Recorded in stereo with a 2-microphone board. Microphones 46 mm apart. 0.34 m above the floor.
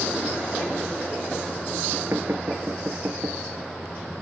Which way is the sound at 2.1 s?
75° right (ahead or behind).